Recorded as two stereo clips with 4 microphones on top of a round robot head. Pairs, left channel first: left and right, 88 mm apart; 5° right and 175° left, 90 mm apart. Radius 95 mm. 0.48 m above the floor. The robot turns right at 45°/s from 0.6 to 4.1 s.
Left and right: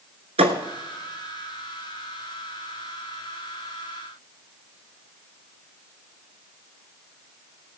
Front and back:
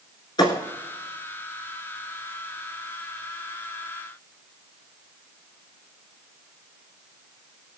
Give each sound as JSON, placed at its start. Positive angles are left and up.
{"t": 0.4, "sound": "a thud", "azimuth_deg": -60, "distance_m": 1.1}